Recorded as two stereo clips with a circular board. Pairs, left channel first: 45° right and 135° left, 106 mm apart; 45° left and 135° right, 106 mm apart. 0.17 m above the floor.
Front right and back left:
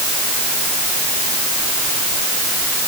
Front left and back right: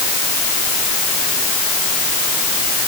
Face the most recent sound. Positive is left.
No sound to turn to.